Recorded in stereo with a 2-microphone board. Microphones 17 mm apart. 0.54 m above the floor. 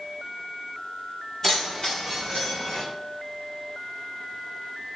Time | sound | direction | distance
1.4 | keys jangling | 25° left (ahead or behind) | 2.0 m